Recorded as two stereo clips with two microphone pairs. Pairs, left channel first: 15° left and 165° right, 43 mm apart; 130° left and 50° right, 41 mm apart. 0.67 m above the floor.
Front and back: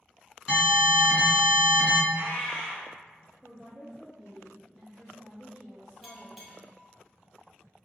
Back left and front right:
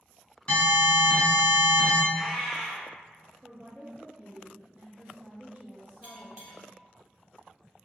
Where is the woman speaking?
80° right, 0.6 m.